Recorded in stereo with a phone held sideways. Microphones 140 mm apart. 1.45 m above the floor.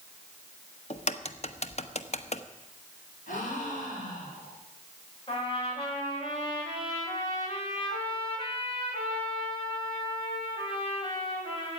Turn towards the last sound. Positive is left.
turn(degrees=40)  # may be behind; listen again after turning